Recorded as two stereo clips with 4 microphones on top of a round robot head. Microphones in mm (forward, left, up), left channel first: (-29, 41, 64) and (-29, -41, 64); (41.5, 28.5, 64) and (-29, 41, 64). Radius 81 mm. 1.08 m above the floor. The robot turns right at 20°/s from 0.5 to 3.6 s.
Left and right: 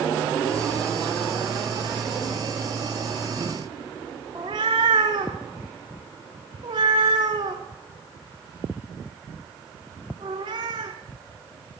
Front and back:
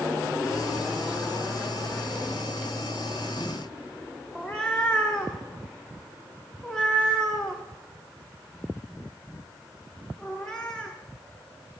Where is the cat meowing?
95° right, 0.6 m.